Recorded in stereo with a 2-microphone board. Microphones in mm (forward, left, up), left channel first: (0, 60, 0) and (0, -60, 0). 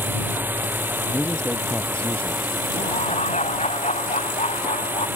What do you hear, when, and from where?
0.0 s a drone: 15° right (ahead or behind)
1.1 s a man speaking: 10° left (ahead or behind)
2.7 s laughter: 70° left (ahead or behind)